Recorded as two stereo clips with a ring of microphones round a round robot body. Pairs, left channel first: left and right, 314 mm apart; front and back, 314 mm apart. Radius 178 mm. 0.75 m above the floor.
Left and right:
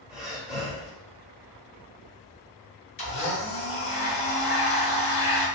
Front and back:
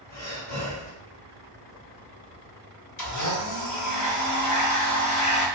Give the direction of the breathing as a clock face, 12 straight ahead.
12 o'clock.